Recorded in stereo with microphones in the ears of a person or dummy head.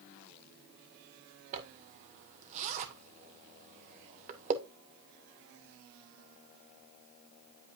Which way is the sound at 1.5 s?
40° right (ahead or behind).